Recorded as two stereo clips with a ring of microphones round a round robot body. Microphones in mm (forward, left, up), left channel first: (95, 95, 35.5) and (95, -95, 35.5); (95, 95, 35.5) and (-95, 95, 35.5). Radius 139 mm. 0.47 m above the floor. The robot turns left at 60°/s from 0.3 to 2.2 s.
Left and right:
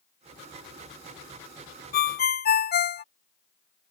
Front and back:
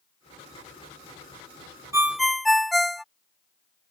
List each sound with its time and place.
1.9 s a ringtone: 105° left; by 3.0 s 90° left